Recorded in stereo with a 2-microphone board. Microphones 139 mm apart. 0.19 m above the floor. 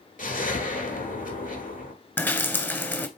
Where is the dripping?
15° left (ahead or behind), 0.7 m.